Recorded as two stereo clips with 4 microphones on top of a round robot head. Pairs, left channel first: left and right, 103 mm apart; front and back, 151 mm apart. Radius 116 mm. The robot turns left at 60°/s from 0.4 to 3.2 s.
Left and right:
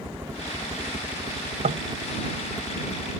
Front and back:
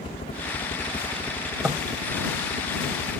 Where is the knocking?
95° right; by 1.9 s 110° right.